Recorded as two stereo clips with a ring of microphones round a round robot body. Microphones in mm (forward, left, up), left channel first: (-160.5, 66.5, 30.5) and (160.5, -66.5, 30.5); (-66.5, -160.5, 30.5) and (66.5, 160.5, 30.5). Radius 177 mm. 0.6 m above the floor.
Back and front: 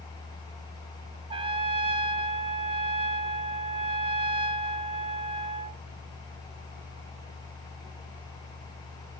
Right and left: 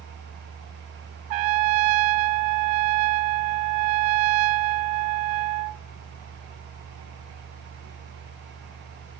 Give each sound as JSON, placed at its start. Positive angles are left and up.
{"t": 1.3, "sound": "a trumpet", "azimuth_deg": 55, "distance_m": 0.6}